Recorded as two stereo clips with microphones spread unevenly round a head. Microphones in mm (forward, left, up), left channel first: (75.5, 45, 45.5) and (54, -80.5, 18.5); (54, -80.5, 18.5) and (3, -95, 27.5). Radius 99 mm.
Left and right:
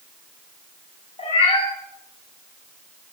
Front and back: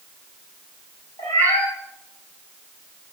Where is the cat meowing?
45° left, 6 m.